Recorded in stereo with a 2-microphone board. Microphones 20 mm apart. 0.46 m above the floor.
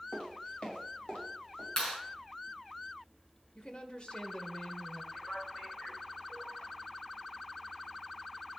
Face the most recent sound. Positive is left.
turn(degrees=60)  # may be behind; listen again after turning